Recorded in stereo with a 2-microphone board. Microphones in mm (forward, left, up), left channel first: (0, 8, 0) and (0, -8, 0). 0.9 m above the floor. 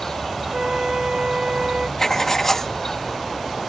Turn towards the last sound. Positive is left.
turn(degrees=30)  # may be behind; listen again after turning